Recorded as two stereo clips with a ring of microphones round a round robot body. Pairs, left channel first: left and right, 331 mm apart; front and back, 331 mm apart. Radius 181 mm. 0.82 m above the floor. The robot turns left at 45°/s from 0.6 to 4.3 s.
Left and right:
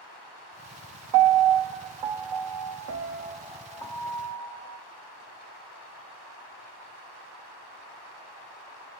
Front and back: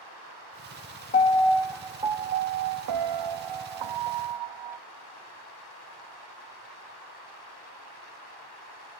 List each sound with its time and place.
1.1 s a piano: 65° right, 0.6 m; by 4.8 s 155° left, 0.6 m